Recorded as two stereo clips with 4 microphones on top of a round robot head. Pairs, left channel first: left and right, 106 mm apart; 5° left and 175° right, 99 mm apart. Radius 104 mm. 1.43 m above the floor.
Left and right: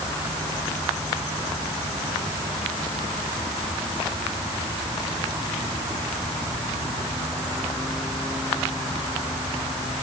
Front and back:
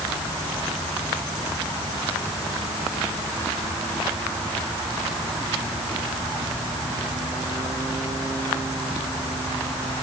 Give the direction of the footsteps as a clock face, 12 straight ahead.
I don't hear footsteps.